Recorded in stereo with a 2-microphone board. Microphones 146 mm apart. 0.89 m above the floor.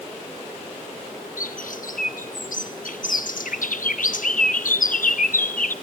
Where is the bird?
75° left (ahead or behind), 0.8 m.